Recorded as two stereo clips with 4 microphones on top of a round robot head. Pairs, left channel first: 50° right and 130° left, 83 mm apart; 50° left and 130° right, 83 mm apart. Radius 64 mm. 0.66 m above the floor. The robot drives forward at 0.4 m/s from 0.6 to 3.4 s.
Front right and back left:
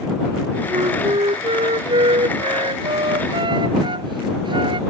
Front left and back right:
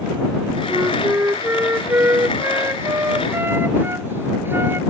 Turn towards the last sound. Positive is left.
turn(degrees=160)